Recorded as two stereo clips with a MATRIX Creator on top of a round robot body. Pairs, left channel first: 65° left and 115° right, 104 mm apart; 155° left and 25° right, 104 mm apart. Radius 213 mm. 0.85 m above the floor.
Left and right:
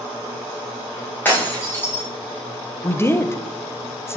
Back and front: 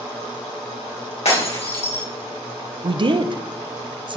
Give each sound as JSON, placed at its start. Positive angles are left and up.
{"t": 1.2, "sound": "breaking glass", "azimuth_deg": 140, "distance_m": 2.5}
{"t": 2.8, "sound": "a woman speaking", "azimuth_deg": 5, "distance_m": 0.8}